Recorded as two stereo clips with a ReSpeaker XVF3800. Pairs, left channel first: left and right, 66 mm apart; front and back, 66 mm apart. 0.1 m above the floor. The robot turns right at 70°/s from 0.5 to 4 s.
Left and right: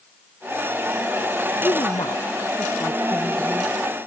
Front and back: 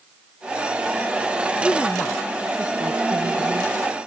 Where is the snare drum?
I don't hear a snare drum.